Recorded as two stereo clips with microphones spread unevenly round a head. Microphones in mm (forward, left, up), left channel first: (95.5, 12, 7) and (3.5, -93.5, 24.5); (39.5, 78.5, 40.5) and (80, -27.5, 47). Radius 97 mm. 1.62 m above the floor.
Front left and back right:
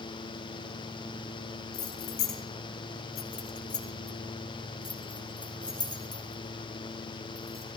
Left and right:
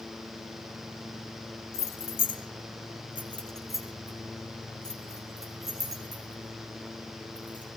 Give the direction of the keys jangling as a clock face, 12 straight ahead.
9 o'clock.